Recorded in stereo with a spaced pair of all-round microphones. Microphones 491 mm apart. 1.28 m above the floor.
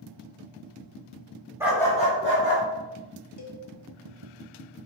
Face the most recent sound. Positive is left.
turn(degrees=40)  # may be behind; listen again after turning